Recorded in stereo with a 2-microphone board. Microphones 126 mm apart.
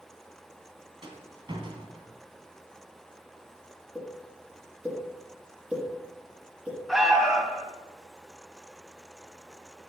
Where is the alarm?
Centre (ahead or behind), 2.0 m.